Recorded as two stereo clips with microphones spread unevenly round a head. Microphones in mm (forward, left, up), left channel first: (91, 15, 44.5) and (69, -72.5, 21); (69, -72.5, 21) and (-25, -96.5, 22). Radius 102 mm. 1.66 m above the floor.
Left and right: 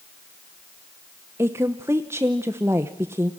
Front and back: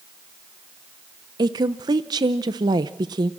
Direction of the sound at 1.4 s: 175° left.